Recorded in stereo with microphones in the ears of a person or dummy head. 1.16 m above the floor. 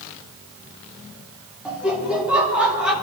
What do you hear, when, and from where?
1.6 s laughter: 5° right (ahead or behind), 2.5 m